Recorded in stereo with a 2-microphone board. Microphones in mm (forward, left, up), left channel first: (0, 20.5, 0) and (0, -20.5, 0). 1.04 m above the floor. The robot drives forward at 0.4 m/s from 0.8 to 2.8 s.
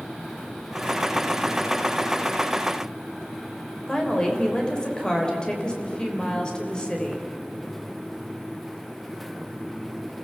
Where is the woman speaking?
20° left (ahead or behind), 3.5 m.